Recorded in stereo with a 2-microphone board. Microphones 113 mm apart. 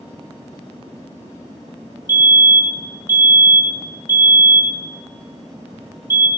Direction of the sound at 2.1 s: 20° right (ahead or behind).